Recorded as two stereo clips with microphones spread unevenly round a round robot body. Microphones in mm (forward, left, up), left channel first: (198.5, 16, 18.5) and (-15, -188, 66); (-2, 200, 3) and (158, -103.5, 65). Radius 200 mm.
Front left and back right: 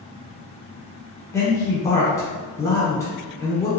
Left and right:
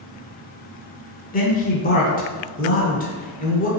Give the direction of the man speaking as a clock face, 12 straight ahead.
9 o'clock.